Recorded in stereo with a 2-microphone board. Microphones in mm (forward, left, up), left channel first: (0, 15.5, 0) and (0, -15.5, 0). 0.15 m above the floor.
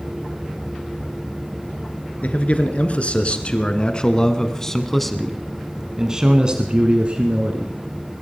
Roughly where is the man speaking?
Left.